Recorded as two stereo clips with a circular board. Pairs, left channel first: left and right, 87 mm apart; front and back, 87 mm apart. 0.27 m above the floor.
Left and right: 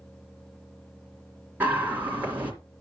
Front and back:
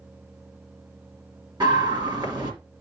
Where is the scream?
155° right, 3 m.